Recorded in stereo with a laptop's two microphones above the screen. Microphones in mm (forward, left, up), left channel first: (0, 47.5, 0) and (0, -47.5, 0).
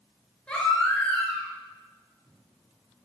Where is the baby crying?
10° left (ahead or behind), 6.5 m.